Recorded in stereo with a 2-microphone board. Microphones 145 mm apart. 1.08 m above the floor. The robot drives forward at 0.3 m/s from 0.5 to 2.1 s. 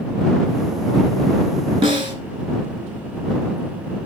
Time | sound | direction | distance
1.8 | a snare drum | 35° right (ahead or behind) | 2.5 m